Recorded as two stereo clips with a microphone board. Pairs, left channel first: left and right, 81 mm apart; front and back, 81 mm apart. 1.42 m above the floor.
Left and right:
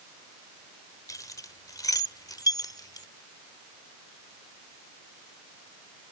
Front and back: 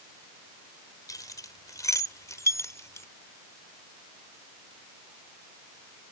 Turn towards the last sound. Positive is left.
turn(degrees=55)